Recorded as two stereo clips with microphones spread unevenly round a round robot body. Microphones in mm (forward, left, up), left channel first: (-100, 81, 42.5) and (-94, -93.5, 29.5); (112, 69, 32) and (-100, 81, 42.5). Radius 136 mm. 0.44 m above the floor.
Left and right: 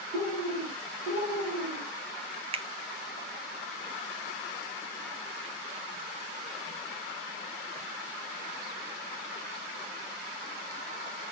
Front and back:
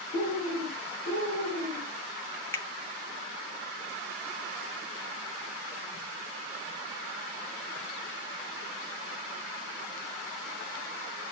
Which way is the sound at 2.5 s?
70° right.